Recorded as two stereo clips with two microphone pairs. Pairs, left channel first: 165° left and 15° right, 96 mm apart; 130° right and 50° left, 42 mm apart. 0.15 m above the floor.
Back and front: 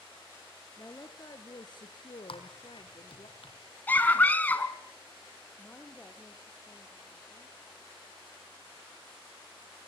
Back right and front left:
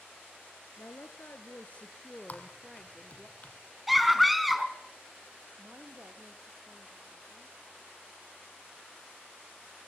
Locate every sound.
0.8 s a woman speaking: 135° right, 2.5 m; by 3.3 s 135° left, 3 m
2.3 s typing on a keyboard: straight behind, 4 m
3.9 s a scream: 140° left, 1.7 m
5.6 s a woman speaking: 95° left, 4 m